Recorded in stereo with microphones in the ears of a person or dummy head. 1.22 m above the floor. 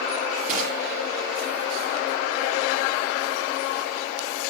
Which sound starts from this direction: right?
Crushing, at 0.5 s.